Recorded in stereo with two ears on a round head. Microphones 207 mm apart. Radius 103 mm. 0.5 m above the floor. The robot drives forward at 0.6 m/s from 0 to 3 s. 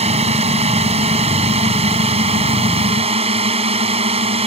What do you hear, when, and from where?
0.0 s a drone: 30° right (ahead or behind); by 4.5 s 25° right (ahead or behind)